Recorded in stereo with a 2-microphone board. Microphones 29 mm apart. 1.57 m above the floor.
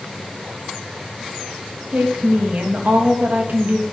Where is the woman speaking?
75° right (ahead or behind), 3 m.